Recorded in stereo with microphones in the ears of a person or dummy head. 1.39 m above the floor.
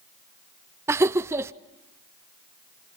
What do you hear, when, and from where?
0.9 s laughter: 10° right (ahead or behind), 0.6 m